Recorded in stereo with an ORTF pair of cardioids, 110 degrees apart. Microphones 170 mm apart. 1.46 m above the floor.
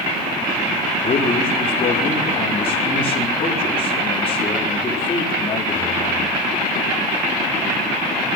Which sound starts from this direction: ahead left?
A man speaking, at 1.0 s.